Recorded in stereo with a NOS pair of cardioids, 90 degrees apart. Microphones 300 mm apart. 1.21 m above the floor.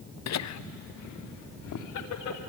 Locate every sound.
0.3 s laughter: 55° left, 0.8 m; by 2.4 s 70° left, 4 m